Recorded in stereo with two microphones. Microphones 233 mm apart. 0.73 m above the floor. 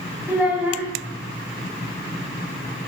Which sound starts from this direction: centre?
A child speaking, at 0.3 s.